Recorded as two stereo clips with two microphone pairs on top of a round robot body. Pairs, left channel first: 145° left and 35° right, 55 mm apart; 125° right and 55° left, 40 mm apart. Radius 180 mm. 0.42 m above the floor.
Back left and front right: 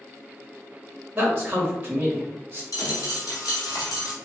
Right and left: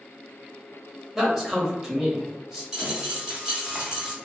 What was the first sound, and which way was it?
A man speaking, 5° left.